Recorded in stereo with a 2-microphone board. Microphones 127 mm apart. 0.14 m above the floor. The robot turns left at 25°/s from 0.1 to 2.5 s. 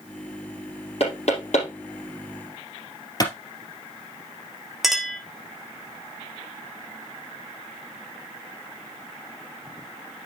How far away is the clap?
About 3 m.